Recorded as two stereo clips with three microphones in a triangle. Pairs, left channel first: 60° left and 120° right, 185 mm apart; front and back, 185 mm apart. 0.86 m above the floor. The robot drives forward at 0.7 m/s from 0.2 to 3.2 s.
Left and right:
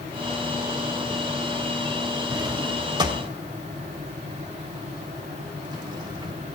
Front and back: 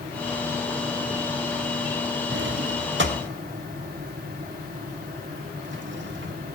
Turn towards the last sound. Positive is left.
turn(degrees=175)